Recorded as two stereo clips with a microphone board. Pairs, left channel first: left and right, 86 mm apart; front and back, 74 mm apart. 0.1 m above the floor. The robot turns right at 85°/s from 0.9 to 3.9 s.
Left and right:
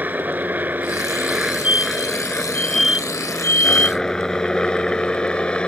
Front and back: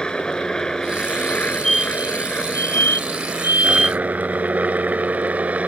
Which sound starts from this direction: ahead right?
A helicopter, at 0.0 s.